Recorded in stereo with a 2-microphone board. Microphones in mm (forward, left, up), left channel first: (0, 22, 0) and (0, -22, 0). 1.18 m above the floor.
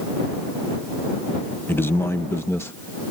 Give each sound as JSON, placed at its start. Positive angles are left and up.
{"t": 1.7, "sound": "a man speaking", "side_deg": 55}